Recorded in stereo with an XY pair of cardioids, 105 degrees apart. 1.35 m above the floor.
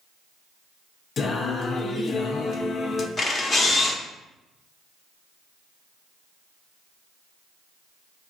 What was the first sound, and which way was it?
Singing, 50° left.